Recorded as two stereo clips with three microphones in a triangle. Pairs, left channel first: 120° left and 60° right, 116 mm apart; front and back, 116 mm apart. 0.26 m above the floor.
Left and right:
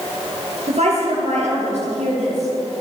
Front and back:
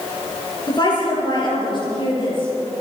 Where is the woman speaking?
50° right, 5 m; by 2.8 s 45° right, 6.5 m.